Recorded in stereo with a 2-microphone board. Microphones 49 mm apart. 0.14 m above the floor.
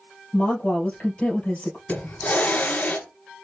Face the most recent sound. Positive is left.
turn(degrees=35)  # may be behind; listen again after turning